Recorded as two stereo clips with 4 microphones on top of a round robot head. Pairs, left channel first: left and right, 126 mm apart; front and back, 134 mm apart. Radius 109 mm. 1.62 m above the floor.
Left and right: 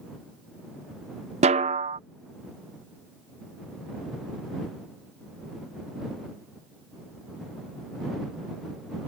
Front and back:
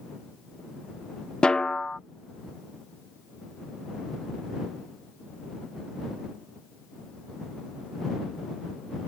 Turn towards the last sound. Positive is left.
turn(degrees=-85)